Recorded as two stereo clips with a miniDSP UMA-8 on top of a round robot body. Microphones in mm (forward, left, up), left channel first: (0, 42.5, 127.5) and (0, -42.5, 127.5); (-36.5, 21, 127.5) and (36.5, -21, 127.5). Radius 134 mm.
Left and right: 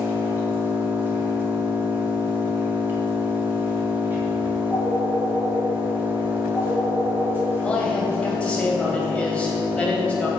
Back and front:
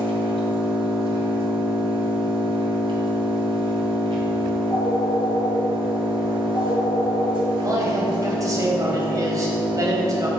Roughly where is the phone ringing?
Behind left.